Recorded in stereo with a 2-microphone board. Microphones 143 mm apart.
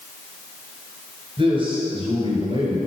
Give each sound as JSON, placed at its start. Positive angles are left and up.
{"t": 1.4, "sound": "a man speaking", "side_deg": -35, "distance_m": 2.5}